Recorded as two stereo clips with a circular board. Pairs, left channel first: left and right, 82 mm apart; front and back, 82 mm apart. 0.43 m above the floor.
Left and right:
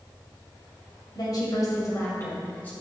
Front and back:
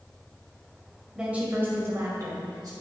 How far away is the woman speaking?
About 2 m.